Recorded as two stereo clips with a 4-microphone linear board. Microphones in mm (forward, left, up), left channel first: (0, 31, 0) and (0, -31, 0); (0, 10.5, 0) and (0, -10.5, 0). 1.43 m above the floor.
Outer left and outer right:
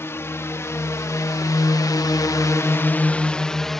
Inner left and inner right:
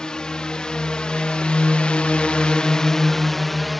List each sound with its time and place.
0.0 s a drone: 45° left (ahead or behind); by 3.8 s 5° left (ahead or behind)